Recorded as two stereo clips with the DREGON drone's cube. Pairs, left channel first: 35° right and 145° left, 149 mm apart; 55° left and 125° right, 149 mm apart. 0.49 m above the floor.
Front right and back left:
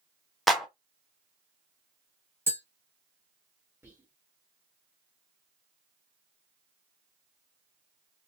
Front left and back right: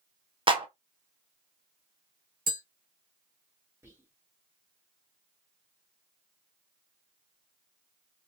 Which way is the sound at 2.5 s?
140° right.